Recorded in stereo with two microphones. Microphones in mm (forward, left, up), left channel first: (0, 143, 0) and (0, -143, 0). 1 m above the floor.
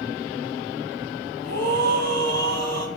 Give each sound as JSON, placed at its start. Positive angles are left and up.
{"t": 1.4, "sound": "a scream", "side_deg": -65, "distance_m": 7.0}